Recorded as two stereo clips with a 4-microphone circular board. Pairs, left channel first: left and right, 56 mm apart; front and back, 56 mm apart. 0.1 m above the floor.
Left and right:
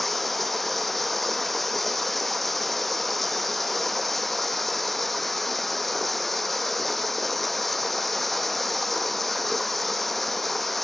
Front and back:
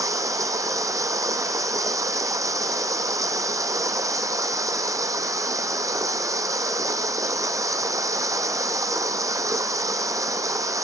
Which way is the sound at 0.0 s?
175° left.